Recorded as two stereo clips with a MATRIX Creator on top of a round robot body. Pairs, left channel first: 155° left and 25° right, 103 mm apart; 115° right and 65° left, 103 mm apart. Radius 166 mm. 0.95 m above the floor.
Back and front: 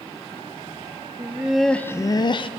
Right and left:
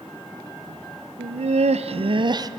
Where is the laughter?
45° left, 0.7 m; by 2.5 s 120° left, 0.8 m.